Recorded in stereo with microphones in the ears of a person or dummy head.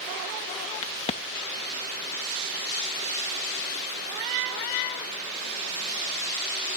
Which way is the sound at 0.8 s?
35° left (ahead or behind).